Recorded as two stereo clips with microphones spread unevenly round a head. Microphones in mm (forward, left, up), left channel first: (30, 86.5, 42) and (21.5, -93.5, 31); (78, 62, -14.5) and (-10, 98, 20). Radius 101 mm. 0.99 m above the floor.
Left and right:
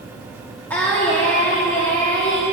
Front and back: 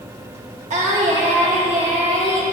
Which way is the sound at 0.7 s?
170° left.